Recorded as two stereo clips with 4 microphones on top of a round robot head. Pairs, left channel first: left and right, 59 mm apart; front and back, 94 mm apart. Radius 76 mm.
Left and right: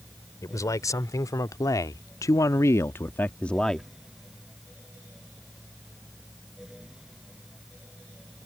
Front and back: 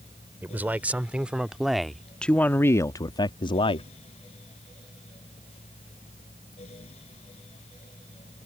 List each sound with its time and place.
0.4 s a man speaking: 110° left; by 3.9 s 5° left